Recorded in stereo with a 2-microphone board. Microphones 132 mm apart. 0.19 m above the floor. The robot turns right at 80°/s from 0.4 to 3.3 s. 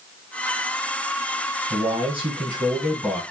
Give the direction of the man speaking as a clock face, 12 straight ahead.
4 o'clock.